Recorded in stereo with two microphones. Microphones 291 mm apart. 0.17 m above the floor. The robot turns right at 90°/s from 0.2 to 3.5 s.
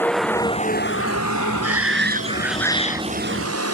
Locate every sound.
0.0 s a vehicle: 5° left (ahead or behind); by 3.7 s 55° right (ahead or behind)
1.6 s a shout: 85° right; by 3.0 s 45° left